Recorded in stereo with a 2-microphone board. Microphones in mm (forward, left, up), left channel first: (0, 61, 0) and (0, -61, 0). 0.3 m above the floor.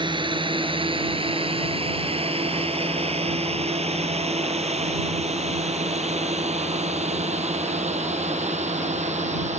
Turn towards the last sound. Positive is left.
turn(degrees=-70)  # may be behind; listen again after turning